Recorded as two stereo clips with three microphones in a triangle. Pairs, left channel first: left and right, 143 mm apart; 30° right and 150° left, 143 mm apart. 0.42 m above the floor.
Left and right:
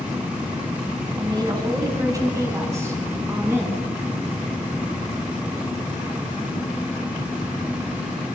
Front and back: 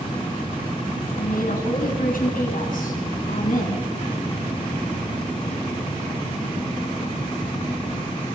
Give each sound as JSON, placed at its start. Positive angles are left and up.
{"t": 1.2, "sound": "a woman speaking", "azimuth_deg": -30, "distance_m": 4.5}